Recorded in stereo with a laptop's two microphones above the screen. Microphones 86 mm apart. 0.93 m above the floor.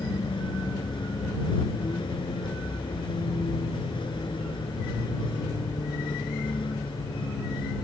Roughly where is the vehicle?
Left.